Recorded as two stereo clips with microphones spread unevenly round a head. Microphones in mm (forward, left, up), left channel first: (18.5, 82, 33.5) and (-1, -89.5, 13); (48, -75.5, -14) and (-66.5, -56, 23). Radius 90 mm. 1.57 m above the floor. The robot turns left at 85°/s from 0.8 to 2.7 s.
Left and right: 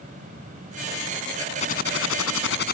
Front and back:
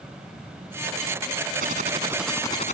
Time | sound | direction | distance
1.6 | typing on a keyboard | 140° left | ?